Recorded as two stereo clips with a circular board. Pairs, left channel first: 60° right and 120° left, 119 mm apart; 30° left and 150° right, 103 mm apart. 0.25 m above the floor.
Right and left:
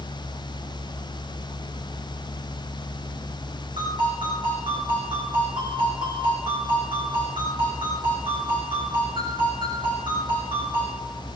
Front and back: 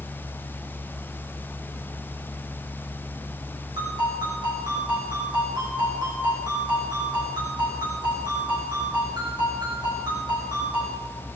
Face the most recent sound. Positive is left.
turn(degrees=165)